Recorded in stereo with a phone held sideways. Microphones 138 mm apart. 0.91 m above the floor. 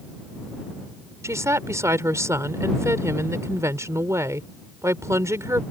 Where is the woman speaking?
20° right (ahead or behind).